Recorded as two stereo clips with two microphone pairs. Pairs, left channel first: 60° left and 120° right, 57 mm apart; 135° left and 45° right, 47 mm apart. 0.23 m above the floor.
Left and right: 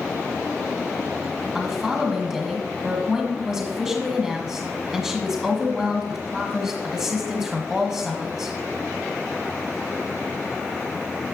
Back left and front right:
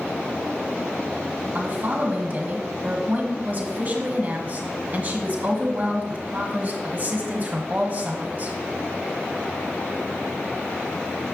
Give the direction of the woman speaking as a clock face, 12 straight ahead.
2 o'clock.